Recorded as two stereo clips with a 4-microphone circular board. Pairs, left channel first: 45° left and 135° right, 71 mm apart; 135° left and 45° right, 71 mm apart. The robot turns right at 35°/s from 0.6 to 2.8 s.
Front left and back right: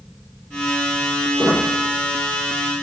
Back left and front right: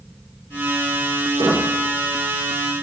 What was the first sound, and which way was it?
A squeak, 65° right.